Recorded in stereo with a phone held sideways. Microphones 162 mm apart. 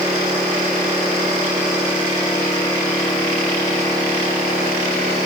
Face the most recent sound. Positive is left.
No sound to turn to.